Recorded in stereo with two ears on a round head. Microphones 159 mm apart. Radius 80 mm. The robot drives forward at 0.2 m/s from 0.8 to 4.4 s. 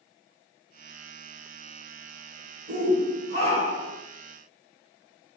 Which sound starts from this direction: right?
A shout, at 2.7 s.